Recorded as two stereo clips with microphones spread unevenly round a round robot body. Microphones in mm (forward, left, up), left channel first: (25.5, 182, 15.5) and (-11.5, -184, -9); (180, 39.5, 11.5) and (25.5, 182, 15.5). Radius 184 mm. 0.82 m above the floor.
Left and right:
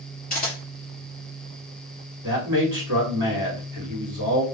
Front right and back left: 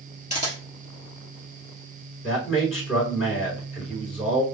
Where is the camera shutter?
15° left, 2.5 m.